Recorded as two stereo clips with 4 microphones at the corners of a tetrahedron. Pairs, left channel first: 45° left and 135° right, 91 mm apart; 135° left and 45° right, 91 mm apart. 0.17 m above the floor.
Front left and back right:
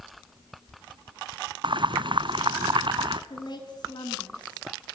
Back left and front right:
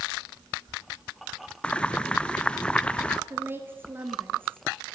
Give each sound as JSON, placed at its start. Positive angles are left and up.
{"t": 1.6, "sound": "boiling", "azimuth_deg": -150, "distance_m": 0.7}
{"t": 3.3, "sound": "a woman speaking", "azimuth_deg": 15, "distance_m": 2.5}